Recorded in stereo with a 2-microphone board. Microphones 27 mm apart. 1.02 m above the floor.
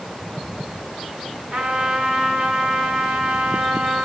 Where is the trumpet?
80° right, 1.9 m.